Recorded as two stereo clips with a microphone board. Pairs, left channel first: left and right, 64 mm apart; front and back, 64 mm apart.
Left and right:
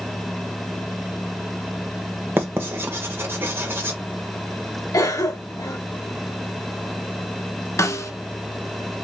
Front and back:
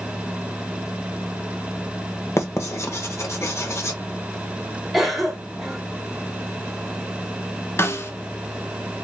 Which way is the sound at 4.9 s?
95° left.